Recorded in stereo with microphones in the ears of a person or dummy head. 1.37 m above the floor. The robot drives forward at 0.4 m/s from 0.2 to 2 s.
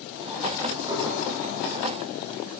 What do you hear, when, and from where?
0.9 s dishes clattering: 20° right (ahead or behind), 1.8 m